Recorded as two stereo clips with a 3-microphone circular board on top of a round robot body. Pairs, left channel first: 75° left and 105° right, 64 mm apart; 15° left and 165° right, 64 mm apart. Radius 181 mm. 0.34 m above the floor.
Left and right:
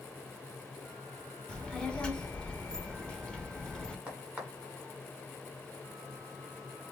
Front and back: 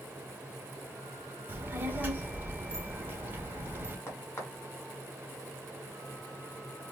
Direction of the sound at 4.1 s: 35° right.